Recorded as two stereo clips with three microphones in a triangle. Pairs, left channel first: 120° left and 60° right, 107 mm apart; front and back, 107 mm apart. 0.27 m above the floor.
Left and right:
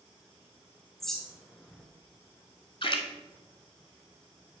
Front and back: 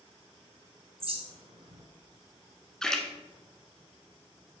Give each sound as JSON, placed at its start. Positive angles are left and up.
{"t": 1.0, "sound": "a bird", "azimuth_deg": -155, "distance_m": 1.2}
{"t": 2.8, "sound": "a splash", "azimuth_deg": 85, "distance_m": 0.9}